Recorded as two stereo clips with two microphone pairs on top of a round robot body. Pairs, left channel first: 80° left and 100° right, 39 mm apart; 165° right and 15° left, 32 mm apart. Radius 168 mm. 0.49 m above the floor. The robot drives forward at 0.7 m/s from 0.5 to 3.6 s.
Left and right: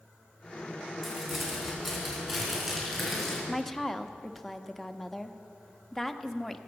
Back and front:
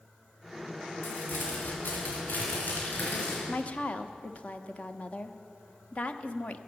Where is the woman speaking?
170° left, 1.0 m.